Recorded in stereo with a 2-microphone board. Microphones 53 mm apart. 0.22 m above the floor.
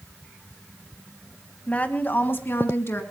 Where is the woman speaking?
25° left (ahead or behind), 1.4 m; by 3.0 s 50° left (ahead or behind), 2.5 m.